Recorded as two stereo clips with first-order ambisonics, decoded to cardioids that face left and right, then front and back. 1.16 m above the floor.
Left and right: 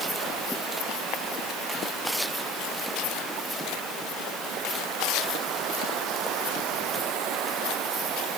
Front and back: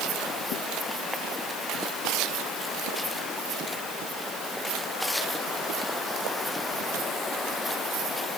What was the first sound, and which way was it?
Only background noise.